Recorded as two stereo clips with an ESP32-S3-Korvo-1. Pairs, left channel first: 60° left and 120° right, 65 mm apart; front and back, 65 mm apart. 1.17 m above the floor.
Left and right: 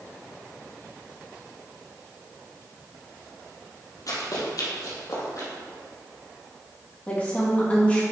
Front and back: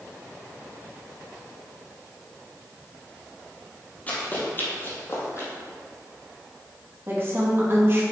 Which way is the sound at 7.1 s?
130° left.